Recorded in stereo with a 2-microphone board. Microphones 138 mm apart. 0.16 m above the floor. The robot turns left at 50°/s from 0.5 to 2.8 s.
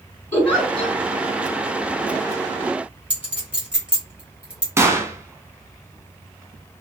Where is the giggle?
15° left (ahead or behind), 1.5 m; by 1.0 s 20° left (ahead or behind), 1.5 m.